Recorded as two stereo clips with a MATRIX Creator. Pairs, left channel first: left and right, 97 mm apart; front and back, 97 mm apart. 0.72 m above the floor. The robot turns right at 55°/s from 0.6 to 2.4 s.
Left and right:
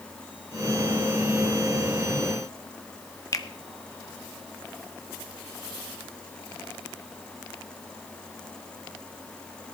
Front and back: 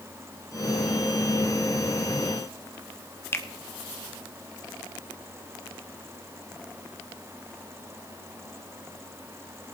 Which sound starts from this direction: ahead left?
A finger snap, at 3.3 s.